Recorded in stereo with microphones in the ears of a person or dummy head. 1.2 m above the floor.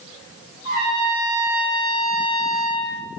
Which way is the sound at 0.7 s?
25° right (ahead or behind).